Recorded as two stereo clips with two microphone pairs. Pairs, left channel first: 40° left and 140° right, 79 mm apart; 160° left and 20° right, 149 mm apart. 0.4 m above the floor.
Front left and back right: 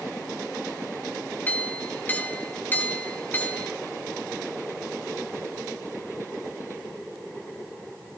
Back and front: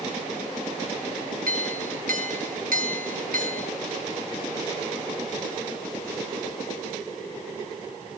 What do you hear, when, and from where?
1.5 s a clink: 25° right, 2 m